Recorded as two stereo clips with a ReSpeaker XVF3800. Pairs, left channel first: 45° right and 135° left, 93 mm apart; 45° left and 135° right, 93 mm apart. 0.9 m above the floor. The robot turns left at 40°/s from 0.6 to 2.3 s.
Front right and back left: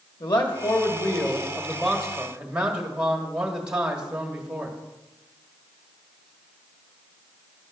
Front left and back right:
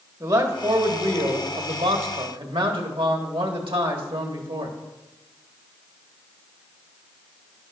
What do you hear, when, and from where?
0.2 s a man speaking: 80° right, 1.6 m; by 4.8 s 145° right, 1.6 m